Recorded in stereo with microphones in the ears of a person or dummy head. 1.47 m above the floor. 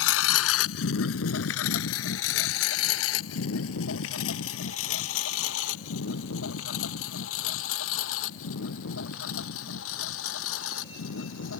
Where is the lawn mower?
75° left (ahead or behind); by 11.6 s 85° left.